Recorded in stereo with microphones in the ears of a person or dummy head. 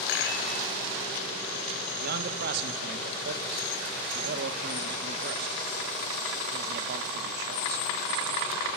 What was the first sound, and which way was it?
A rattle, 70° left (ahead or behind).